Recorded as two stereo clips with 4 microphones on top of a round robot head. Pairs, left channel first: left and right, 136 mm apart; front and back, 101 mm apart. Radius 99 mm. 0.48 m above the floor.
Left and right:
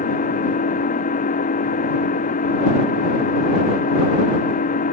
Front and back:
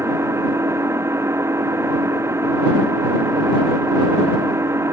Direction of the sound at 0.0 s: 115° left.